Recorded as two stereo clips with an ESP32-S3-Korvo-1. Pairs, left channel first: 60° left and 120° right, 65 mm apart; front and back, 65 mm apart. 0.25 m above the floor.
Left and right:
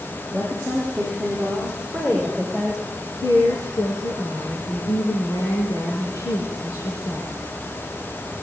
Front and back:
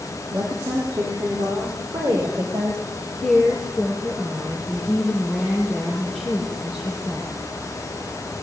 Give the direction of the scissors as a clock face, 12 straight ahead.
I don't hear scissors.